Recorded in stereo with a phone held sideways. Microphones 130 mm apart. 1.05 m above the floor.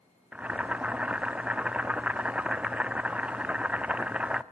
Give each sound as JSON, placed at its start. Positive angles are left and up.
{"t": 0.3, "sound": "boiling", "side_deg": -10, "distance_m": 0.6}